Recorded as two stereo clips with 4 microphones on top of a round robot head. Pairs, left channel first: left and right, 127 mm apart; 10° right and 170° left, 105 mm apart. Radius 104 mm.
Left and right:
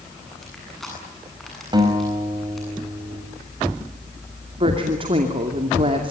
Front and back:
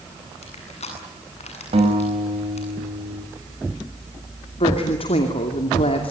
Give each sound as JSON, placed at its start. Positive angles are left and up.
{"t": 0.4, "sound": "crushing", "azimuth_deg": 0, "distance_m": 8.5}
{"t": 1.7, "sound": "a guitar", "azimuth_deg": -145, "distance_m": 5.5}
{"t": 4.6, "sound": "a woman speaking", "azimuth_deg": -40, "distance_m": 2.5}